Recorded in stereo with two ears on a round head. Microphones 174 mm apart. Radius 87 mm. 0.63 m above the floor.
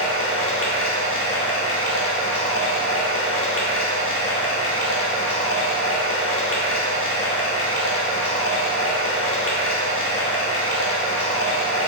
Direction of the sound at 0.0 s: 75° left (ahead or behind).